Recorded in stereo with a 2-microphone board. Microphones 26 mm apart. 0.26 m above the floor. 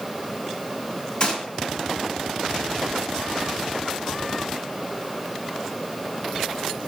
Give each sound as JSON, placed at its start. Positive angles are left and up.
{"t": 1.2, "sound": "a gunshot", "side_deg": 40, "distance_m": 1.4}